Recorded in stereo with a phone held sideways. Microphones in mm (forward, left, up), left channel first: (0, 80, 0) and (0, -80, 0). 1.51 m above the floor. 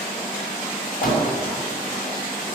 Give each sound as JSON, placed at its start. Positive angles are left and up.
{"t": 1.0, "sound": "a door slam", "side_deg": 70, "distance_m": 6.5}